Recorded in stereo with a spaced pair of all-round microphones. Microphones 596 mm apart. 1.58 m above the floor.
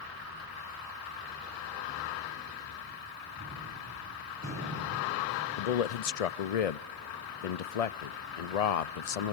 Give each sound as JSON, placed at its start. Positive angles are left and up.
{"t": 3.4, "sound": "a gunshot", "side_deg": -30, "distance_m": 6.5}
{"t": 5.6, "sound": "a man speaking", "side_deg": 80, "distance_m": 0.7}